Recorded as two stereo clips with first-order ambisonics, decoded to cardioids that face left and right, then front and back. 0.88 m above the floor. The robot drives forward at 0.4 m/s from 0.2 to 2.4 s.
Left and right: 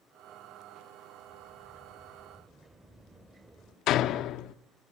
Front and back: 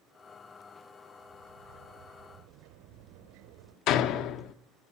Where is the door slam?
40° left, 0.9 m.